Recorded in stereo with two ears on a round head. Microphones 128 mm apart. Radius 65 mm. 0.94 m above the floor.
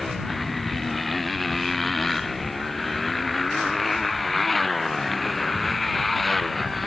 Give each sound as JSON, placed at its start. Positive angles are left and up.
{"t": 0.0, "sound": "a motorcycle", "side_deg": 0}